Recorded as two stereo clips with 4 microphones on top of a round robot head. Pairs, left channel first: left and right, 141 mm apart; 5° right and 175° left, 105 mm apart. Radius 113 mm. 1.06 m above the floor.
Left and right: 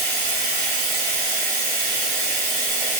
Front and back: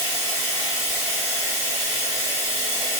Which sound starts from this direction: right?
Running water, at 0.0 s.